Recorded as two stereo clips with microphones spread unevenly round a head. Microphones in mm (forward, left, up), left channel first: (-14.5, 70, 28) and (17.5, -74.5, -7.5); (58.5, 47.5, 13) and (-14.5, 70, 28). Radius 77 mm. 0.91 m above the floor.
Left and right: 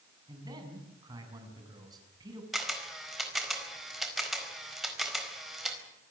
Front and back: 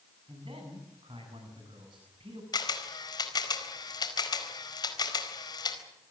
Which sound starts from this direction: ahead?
A camera shutter, at 2.5 s.